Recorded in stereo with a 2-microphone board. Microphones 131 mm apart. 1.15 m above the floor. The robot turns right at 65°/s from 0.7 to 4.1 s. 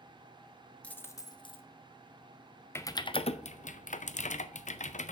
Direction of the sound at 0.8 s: 10° left.